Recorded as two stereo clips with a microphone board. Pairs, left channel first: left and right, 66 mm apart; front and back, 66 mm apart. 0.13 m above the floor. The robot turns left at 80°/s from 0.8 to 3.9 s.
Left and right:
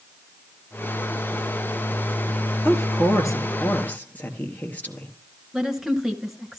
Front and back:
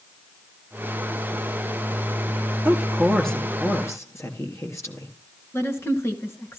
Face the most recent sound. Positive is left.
turn(degrees=-10)